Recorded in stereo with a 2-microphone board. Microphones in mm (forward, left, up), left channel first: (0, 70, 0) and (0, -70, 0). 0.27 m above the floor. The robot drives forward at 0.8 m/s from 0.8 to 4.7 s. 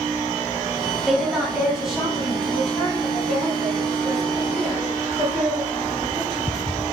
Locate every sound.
1.1 s a woman speaking: 5° right (ahead or behind), 0.9 m; by 6.6 s centre (ahead or behind), 3.5 m